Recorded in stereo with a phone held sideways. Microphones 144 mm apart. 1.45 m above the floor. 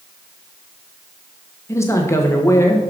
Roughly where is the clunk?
I don't hear a clunk.